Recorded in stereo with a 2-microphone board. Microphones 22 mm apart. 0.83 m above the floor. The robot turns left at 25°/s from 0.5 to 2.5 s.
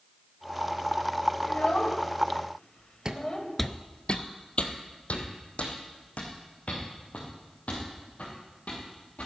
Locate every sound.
1.4 s a child speaking: 55° left (ahead or behind), 2.5 m; by 3.5 s 30° left (ahead or behind), 2.5 m
3.0 s footsteps: 30° right (ahead or behind), 1.1 m; by 9.3 s 60° left (ahead or behind), 8 m